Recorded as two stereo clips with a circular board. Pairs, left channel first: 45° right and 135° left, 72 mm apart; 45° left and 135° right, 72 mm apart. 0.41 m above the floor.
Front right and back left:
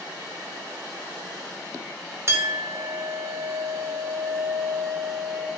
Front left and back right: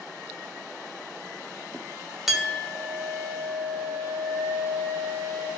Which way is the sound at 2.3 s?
140° left.